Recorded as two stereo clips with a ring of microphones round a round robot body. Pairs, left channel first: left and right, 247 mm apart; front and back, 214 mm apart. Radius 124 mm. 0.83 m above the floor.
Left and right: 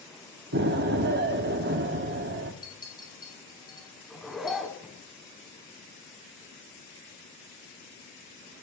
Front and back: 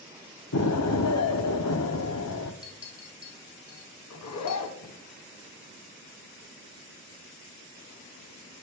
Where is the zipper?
Straight ahead, 2 m.